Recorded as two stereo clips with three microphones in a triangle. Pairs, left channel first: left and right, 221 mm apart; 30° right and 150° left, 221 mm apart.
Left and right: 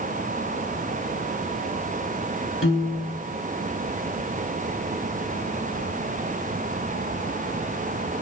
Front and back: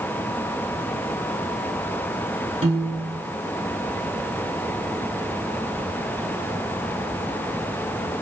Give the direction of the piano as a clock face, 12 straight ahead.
9 o'clock.